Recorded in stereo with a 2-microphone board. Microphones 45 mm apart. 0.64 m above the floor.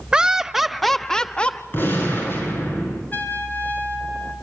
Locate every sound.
0.1 s laughter: 20° right (ahead or behind), 1.0 m; by 1.6 s 25° left (ahead or behind), 0.9 m
1.7 s a gunshot: 50° left (ahead or behind), 6 m
3.1 s a trumpet: 45° left (ahead or behind), 3.5 m